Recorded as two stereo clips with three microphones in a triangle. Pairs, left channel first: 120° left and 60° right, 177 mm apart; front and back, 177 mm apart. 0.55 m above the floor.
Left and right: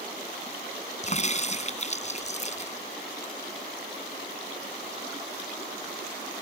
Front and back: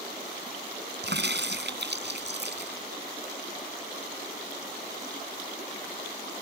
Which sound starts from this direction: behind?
A crack, at 1.0 s.